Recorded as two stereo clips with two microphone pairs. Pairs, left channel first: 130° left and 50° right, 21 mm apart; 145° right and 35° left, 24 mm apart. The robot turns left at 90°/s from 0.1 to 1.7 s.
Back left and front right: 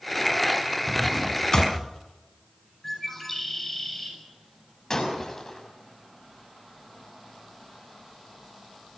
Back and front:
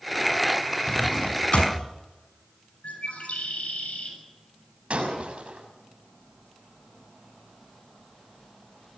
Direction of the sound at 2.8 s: 155° right.